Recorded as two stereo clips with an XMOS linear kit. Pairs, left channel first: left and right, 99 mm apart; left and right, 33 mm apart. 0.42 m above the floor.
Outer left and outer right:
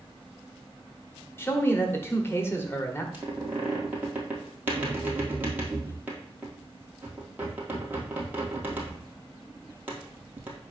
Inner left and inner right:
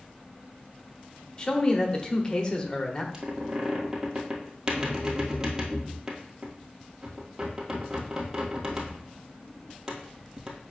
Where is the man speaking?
25° left (ahead or behind), 1.0 m.